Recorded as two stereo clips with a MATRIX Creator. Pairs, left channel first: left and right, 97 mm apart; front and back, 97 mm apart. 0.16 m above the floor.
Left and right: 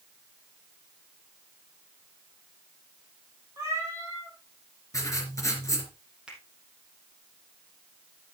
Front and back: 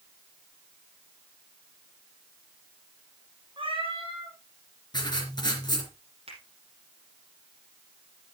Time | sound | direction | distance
3.6 | a cat meowing | 150° right | 4.5 m
4.9 | writing | 35° left | 3 m
6.3 | a finger snap | 170° right | 4 m